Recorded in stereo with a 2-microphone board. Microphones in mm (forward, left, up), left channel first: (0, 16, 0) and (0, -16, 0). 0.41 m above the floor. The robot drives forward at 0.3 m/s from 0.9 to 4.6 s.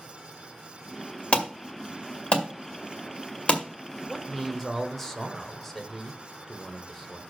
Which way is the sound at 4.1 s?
15° left (ahead or behind).